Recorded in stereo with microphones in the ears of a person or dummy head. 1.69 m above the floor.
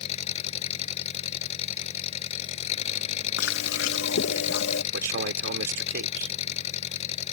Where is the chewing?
80° left.